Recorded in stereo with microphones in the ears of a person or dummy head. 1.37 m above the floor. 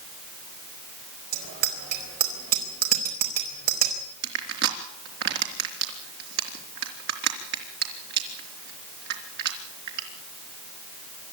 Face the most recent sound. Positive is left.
turn(degrees=-55)  # may be behind; listen again after turning